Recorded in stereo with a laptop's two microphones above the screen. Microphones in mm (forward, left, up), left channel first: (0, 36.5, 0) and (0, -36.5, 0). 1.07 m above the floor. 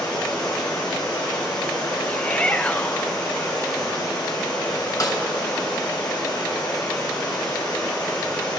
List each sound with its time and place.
0.0 s running water: 70° left (ahead or behind), 3.5 m
2.1 s a shout: 15° left (ahead or behind), 0.6 m
5.0 s a snare drum: 50° left (ahead or behind), 2 m